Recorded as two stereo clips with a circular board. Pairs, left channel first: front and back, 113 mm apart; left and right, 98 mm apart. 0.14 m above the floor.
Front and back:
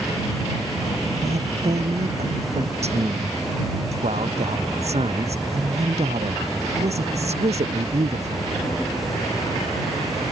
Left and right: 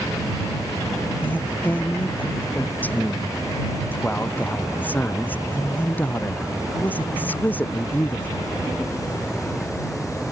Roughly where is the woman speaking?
Behind.